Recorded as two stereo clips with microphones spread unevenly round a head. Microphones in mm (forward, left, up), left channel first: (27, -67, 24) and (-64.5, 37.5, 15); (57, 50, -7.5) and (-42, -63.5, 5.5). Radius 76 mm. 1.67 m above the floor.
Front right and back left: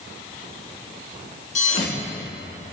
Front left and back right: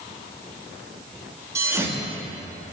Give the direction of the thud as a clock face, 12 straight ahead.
2 o'clock.